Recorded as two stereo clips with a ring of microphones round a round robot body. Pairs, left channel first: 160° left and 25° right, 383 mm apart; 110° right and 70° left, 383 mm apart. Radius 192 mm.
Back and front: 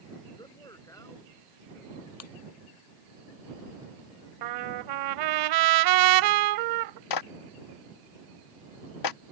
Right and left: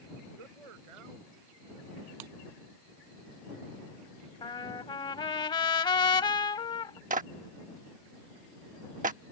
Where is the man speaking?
75° left; by 2.1 s 70° left.